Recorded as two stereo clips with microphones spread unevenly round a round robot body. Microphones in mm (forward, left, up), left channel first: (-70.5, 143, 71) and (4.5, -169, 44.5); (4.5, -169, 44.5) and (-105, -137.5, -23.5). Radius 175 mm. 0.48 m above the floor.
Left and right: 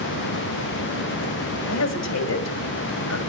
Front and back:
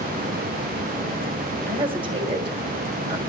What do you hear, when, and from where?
1.7 s a woman speaking: 140° left, 3 m